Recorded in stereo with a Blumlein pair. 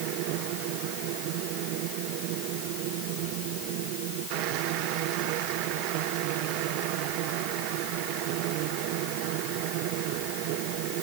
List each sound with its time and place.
0.0 s a machine running: 40° right